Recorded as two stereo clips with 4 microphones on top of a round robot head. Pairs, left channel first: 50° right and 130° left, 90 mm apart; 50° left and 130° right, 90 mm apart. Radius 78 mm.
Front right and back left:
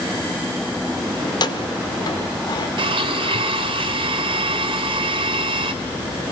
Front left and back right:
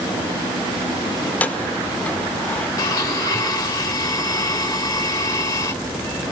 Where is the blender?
105° left, 3 m.